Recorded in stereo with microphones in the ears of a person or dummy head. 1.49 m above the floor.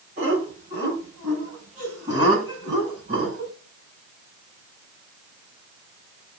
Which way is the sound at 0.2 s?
40° right (ahead or behind).